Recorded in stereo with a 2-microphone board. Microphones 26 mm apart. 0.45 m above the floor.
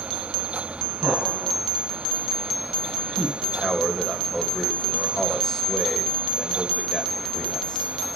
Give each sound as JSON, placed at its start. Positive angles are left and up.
{"t": 1.0, "sound": "laughter", "side_deg": -50, "distance_m": 6.0}
{"t": 3.4, "sound": "a man speaking", "side_deg": -5, "distance_m": 2.5}